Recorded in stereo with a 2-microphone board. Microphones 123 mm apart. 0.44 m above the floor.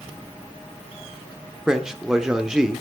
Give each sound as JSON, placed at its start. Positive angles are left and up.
{"t": 1.7, "sound": "a man speaking", "side_deg": -5, "distance_m": 0.8}